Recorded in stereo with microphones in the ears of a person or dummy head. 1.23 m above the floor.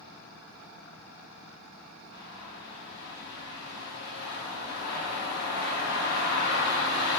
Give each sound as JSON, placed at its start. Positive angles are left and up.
{"t": 2.1, "sound": "a bird", "side_deg": 60, "distance_m": 1.3}